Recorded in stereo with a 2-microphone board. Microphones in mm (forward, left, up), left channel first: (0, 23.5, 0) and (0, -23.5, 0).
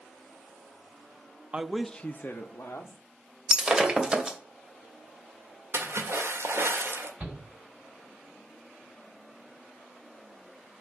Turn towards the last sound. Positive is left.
turn(degrees=-30)  # may be behind; listen again after turning